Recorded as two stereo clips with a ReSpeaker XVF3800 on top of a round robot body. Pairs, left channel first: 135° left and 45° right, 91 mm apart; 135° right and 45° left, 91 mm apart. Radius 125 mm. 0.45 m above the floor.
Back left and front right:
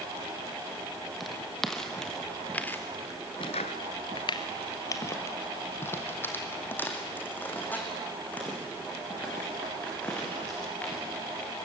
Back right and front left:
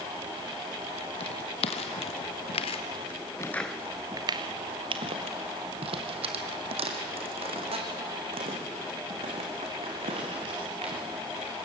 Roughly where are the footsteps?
Behind right.